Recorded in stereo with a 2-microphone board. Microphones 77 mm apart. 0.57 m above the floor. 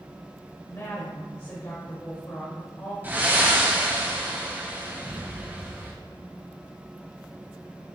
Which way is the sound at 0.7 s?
35° left (ahead or behind).